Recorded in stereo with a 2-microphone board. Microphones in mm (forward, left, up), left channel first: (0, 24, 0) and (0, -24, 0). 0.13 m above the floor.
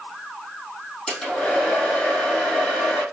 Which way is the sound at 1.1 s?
10° left (ahead or behind).